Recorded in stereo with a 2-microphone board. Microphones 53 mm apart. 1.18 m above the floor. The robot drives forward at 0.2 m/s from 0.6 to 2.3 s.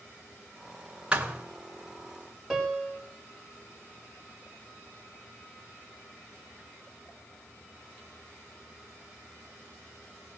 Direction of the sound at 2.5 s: Centre (ahead or behind).